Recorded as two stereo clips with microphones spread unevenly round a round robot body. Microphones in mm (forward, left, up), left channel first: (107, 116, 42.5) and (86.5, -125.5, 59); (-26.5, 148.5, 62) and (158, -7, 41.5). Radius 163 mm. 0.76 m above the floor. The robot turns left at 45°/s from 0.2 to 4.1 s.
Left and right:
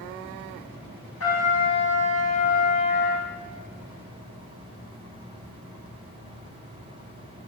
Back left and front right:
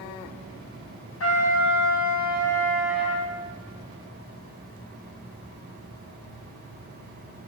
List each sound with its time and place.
1.2 s a trumpet: 125° left, 4.5 m; by 3.3 s 30° left, 4.5 m